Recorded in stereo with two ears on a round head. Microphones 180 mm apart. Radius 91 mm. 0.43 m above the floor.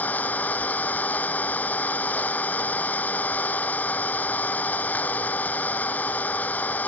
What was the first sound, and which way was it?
An engine running, 10° left (ahead or behind).